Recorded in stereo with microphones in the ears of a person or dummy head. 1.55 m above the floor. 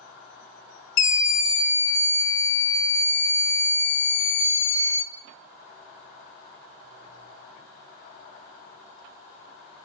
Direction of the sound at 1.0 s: 65° left (ahead or behind).